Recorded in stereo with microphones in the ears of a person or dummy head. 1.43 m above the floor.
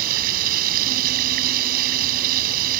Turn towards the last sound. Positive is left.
turn(degrees=-50)  # may be behind; listen again after turning